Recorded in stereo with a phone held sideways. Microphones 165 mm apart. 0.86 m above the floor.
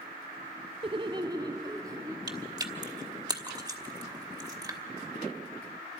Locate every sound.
0.8 s laughter: 30° right (ahead or behind), 0.6 m; by 2.2 s 20° right (ahead or behind), 1.9 m
2.3 s chewing: 25° right (ahead or behind), 1.2 m